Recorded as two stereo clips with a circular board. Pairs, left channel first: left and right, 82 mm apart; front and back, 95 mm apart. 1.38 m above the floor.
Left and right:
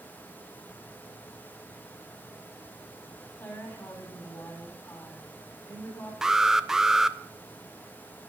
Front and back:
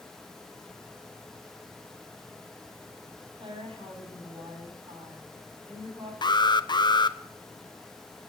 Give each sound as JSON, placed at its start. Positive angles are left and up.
{"t": 3.4, "sound": "a woman speaking", "azimuth_deg": 155, "distance_m": 9.0}
{"t": 6.2, "sound": "an alarm", "azimuth_deg": -10, "distance_m": 0.6}